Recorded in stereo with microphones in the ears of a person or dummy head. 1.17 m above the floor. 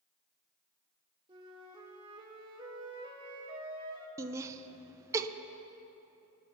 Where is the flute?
25° right (ahead or behind), 2.5 m.